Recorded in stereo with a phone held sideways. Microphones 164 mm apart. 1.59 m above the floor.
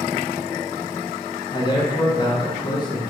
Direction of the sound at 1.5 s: 30° left (ahead or behind).